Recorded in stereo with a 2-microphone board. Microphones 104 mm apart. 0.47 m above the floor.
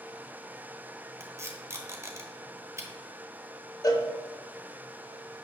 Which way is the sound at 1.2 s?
25° right (ahead or behind).